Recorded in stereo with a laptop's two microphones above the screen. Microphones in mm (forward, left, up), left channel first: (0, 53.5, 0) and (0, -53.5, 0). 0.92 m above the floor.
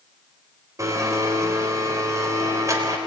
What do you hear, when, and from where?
0.8 s a blender: 30° right (ahead or behind), 3.5 m